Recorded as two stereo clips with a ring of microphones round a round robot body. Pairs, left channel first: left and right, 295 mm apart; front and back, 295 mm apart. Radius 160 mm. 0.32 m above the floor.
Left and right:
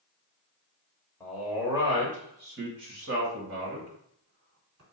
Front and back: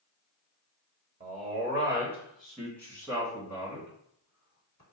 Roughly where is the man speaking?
Behind.